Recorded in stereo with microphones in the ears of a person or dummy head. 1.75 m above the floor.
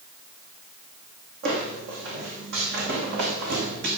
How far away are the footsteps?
About 5.5 m.